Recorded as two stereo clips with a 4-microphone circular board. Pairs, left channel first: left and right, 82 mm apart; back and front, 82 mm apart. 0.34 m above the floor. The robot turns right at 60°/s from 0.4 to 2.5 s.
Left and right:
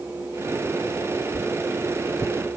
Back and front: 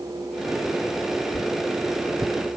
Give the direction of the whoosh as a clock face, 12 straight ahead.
12 o'clock.